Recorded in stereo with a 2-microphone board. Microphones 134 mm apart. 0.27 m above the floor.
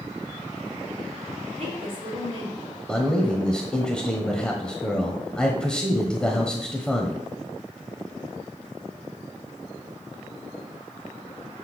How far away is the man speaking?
About 1.0 m.